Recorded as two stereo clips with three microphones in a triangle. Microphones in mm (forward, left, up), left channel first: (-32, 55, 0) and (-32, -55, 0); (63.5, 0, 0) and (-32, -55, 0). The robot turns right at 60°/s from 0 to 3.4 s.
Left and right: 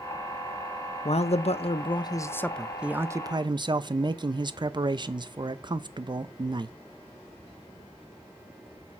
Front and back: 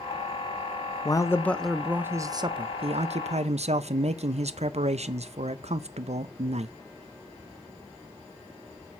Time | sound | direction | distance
1.1 | a man speaking | 80° left | 0.6 m